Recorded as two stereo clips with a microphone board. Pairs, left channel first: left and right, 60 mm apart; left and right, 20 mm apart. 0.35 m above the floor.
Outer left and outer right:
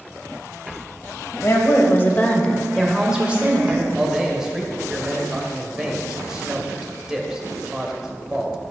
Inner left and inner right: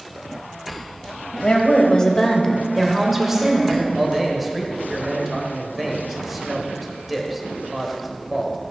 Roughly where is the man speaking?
Centre.